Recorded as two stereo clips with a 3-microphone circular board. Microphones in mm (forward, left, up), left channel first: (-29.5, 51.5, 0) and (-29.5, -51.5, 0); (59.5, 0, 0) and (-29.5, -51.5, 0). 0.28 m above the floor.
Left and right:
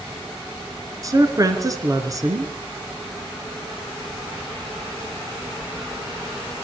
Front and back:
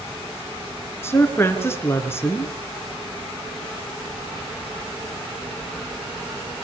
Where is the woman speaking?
35° right, 3.5 m.